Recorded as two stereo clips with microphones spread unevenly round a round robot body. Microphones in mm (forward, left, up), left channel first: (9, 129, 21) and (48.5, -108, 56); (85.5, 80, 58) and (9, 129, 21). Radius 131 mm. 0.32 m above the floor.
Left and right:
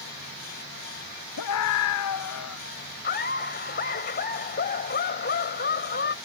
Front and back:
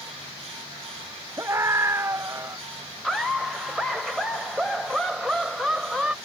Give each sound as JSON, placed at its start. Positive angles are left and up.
{"t": 1.4, "sound": "a scream", "azimuth_deg": 90}
{"t": 3.0, "sound": "laughter", "azimuth_deg": 80}